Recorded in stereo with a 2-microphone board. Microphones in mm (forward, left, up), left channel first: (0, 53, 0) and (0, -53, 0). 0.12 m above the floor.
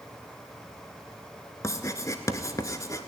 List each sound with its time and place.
1.6 s writing: 30° left (ahead or behind), 0.8 m